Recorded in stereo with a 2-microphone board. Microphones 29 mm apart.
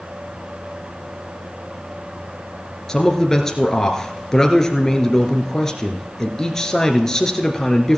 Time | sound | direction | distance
2.9 | a man speaking | 15° left (ahead or behind) | 1.6 m